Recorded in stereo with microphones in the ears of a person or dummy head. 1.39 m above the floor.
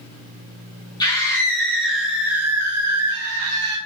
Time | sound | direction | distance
1.0 | a scream | 20° left (ahead or behind) | 2 m